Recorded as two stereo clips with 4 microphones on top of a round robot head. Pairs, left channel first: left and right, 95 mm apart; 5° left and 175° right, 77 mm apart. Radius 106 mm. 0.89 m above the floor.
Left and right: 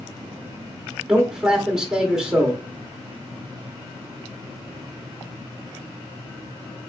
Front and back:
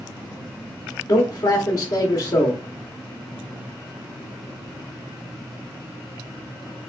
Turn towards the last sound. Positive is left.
turn(degrees=-10)